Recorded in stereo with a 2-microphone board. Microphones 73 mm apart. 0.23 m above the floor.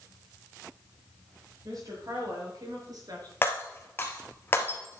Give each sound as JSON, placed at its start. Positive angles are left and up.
{"t": 1.6, "sound": "a woman speaking", "side_deg": -60, "distance_m": 5.5}
{"t": 3.4, "sound": "breaking glass", "side_deg": 30, "distance_m": 2.0}